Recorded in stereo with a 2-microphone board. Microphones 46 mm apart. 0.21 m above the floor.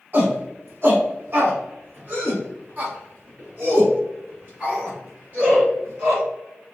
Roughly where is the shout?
Right.